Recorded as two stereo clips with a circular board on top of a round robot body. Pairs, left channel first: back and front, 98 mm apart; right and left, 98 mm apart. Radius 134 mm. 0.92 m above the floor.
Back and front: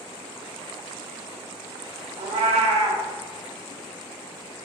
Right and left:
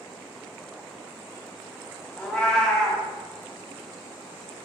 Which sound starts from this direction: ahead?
A cat meowing, at 2.2 s.